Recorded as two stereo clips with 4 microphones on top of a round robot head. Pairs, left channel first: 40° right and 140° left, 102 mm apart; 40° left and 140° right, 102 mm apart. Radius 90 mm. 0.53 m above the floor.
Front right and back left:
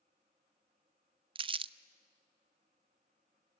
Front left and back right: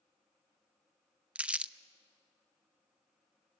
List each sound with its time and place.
1.4 s crumpling: 145° left, 0.6 m